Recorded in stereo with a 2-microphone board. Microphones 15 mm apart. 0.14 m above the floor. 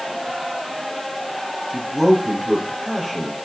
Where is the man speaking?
Centre (ahead or behind), 4 m.